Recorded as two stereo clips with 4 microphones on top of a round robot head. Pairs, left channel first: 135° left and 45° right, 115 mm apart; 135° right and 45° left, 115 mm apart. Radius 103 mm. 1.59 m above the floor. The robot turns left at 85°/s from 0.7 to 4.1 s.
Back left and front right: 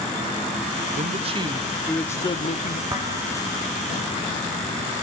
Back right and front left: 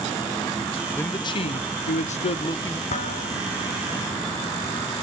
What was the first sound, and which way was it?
A man speaking, 55° right.